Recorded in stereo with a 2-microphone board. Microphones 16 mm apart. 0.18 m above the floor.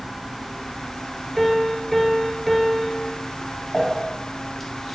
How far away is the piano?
About 0.9 m.